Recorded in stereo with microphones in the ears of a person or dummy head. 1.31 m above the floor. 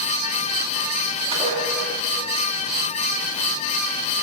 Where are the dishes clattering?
25° right (ahead or behind), 2 m.